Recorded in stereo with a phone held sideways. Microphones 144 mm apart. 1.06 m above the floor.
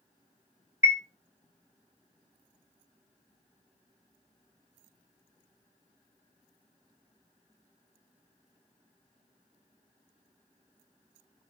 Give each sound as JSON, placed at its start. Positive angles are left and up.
{"t": 0.8, "sound": "a chime", "side_deg": -20, "distance_m": 0.6}